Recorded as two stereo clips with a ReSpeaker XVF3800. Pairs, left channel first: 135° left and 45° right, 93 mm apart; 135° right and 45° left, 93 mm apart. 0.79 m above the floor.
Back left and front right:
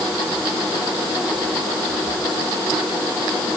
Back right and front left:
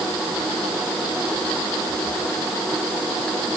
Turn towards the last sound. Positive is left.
No sound to turn to.